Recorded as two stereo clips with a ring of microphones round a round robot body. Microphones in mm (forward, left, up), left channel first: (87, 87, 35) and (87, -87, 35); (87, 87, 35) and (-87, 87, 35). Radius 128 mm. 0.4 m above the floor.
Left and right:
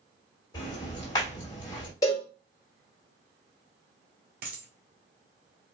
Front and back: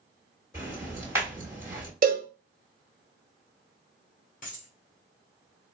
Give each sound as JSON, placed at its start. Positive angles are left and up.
{"t": 0.5, "sound": "ticking", "azimuth_deg": 125, "distance_m": 1.5}
{"t": 2.0, "sound": "a cowbell", "azimuth_deg": 160, "distance_m": 1.0}
{"t": 4.4, "sound": "a dropped coin", "azimuth_deg": -60, "distance_m": 1.3}